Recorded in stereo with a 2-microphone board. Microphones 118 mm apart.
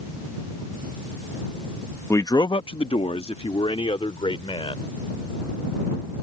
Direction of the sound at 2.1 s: 20° left (ahead or behind).